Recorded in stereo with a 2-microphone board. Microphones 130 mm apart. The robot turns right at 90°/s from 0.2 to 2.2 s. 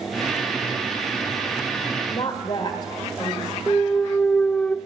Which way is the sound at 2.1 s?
50° left (ahead or behind).